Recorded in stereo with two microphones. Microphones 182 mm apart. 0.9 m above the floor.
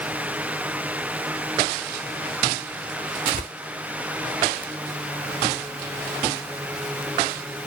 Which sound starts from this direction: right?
Tearing paper, at 3.3 s.